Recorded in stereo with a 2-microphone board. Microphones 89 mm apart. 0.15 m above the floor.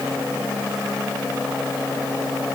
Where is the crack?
I don't hear a crack.